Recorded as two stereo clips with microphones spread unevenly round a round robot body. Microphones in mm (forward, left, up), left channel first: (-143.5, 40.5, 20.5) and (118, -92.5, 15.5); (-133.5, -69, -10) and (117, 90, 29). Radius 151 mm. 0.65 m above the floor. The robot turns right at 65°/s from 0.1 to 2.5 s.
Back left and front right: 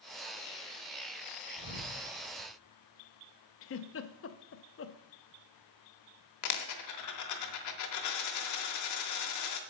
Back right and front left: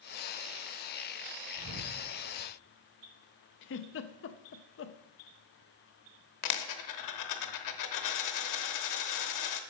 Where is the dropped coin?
175° right, 0.9 m.